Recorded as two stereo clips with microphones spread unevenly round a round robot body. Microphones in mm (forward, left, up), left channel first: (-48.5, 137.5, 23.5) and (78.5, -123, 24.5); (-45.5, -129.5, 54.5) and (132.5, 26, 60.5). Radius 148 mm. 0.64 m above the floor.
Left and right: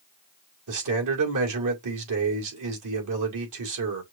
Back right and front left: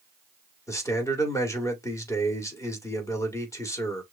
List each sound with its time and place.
0.7 s a man speaking: 65° right, 2 m